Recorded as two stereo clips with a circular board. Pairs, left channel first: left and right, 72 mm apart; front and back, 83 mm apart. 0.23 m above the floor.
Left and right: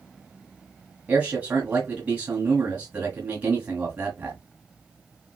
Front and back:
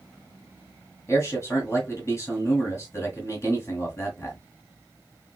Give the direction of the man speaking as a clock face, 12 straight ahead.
1 o'clock.